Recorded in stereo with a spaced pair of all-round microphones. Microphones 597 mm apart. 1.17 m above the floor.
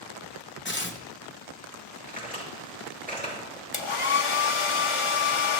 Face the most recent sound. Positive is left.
turn(degrees=55)  # may be behind; listen again after turning